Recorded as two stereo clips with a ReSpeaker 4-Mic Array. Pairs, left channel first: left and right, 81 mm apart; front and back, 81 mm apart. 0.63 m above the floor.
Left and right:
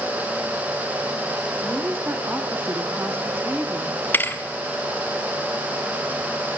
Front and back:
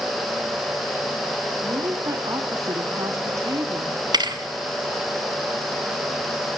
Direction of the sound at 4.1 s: 155° left.